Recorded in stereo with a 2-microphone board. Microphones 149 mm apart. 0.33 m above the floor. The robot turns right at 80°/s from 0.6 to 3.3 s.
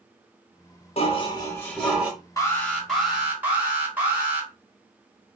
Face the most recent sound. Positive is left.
turn(degrees=-10)  # may be behind; listen again after turning